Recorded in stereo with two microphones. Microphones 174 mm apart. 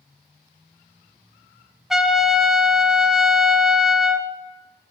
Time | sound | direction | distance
1.9 | a trumpet | 5° right (ahead or behind) | 0.9 m